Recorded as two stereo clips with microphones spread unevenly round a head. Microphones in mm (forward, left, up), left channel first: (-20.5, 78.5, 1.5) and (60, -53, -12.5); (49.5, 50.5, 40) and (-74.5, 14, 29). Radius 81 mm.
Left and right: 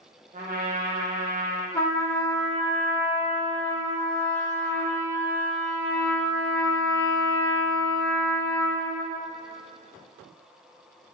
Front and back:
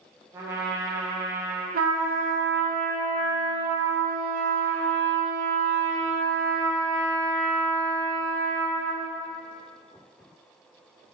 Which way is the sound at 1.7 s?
165° right.